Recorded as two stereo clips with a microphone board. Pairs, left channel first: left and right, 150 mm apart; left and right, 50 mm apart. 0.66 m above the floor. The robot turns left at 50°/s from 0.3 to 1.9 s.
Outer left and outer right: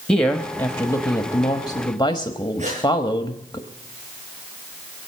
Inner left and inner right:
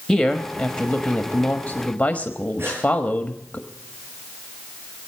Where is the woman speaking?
5° left (ahead or behind), 1.0 m; by 3.6 s 30° left (ahead or behind), 1.0 m.